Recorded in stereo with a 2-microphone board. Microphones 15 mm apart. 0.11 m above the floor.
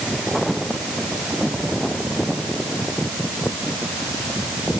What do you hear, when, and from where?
Only background noise.